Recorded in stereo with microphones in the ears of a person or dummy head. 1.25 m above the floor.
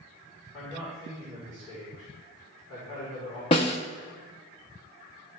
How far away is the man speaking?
About 4 m.